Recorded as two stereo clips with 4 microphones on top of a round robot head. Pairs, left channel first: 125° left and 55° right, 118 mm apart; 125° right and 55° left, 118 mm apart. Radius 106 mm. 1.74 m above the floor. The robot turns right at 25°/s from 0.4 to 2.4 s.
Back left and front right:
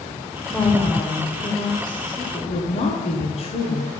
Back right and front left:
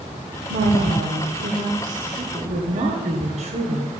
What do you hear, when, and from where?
0.5 s a woman speaking: 40° left, 1.5 m; by 3.9 s 85° left, 1.5 m